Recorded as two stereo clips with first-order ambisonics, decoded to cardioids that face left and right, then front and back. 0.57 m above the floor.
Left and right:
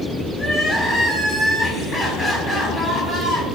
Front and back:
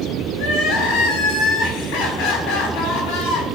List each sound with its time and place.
0.3 s crying: 20° left, 4.5 m